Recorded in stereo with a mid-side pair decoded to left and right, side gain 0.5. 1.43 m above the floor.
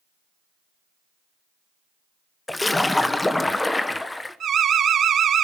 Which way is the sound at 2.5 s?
15° left.